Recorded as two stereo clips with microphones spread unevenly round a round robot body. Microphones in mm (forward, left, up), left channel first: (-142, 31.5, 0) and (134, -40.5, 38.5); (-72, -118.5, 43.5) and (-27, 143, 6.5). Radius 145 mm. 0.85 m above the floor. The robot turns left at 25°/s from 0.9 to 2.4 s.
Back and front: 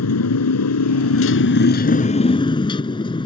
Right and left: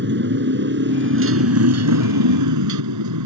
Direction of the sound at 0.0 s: 130° left.